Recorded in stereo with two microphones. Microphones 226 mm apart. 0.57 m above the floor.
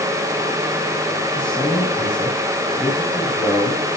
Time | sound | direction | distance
1.4 | a man speaking | 10° left (ahead or behind) | 5 m